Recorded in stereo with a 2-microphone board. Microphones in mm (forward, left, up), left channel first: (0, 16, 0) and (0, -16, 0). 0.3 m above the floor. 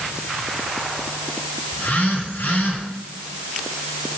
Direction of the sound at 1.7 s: 70° left (ahead or behind).